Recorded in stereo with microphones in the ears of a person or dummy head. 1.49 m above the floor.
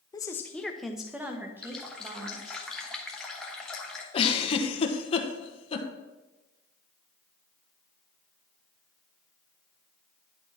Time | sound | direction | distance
0.1 | a woman speaking | 15° left (ahead or behind) | 0.7 m
1.6 | a running tap | centre (ahead or behind) | 1.1 m
4.1 | a giggle | 35° left (ahead or behind) | 1.1 m